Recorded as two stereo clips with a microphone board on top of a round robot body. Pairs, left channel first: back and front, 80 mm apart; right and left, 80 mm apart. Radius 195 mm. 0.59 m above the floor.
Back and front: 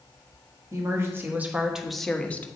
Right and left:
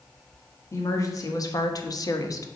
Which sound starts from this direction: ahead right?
A woman speaking, at 0.7 s.